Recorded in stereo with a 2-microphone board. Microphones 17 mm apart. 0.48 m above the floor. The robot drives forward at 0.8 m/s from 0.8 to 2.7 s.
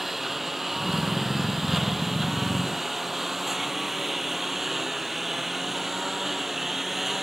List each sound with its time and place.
0.0 s a lawn mower: 10° right (ahead or behind)